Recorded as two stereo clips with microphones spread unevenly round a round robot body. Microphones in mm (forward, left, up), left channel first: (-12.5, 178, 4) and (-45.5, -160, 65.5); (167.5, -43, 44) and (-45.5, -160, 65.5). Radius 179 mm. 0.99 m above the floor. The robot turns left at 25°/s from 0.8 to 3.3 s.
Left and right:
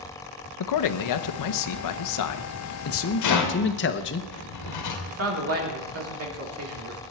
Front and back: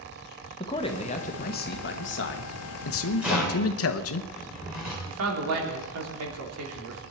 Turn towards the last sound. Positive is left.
turn(degrees=-145)